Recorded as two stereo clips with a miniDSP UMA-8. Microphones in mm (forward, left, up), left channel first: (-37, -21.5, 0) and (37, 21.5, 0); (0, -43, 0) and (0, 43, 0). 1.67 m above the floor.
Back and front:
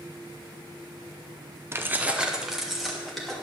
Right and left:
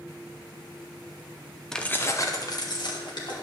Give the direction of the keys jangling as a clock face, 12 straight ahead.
12 o'clock.